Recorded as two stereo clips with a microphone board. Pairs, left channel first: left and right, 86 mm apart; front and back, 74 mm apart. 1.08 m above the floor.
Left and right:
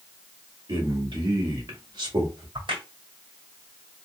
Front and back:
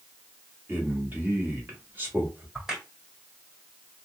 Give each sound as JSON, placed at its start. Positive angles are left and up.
{"t": 0.7, "sound": "a man speaking", "azimuth_deg": -115, "distance_m": 2.0}
{"t": 2.5, "sound": "a crack", "azimuth_deg": -95, "distance_m": 1.8}